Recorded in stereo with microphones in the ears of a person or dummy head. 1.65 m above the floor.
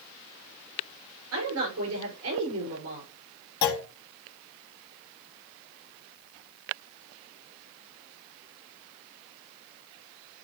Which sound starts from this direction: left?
A clunk, at 3.6 s.